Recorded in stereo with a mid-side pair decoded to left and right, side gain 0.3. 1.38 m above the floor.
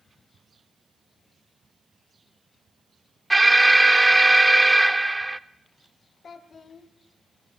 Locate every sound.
3.3 s an alarm: 20° right, 0.5 m
6.2 s a child speaking: 65° left, 1.3 m